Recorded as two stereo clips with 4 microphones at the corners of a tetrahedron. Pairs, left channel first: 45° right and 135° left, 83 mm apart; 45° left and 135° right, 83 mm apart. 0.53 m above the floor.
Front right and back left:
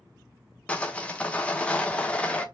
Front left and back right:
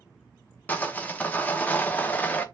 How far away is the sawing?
About 0.5 m.